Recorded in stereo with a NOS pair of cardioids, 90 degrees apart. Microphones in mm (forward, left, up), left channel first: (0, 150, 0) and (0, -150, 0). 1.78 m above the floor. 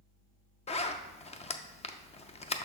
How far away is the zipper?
About 0.6 m.